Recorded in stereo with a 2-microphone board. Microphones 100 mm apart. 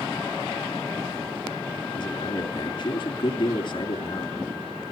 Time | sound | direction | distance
1.9 | a man speaking | 50° left (ahead or behind) | 3.5 m